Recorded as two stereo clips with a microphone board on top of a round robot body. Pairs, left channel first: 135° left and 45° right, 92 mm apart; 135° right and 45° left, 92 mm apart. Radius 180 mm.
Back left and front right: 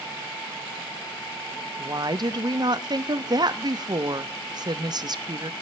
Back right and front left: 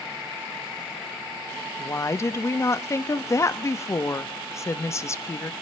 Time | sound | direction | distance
1.8 | a woman speaking | 80° right | 1.0 m